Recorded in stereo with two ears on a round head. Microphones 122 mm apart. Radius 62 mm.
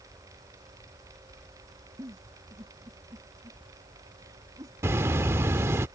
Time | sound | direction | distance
2.0 | a giggle | 25° right (ahead or behind) | ?
4.8 | a bird | 20° right (ahead or behind) | ?